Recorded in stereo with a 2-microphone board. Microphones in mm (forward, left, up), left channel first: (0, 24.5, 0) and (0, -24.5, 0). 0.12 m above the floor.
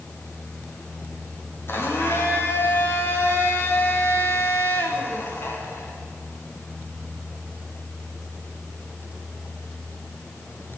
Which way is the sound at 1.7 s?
55° left (ahead or behind).